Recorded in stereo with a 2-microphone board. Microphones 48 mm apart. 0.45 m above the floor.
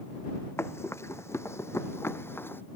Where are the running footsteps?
70° left (ahead or behind); by 2.6 s 55° left (ahead or behind).